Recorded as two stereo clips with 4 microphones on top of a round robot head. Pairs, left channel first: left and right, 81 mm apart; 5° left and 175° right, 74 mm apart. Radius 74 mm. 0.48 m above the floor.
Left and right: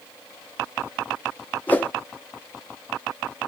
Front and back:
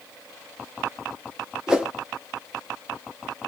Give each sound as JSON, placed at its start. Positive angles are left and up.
{"t": 1.7, "sound": "a whoosh", "azimuth_deg": 120, "distance_m": 0.8}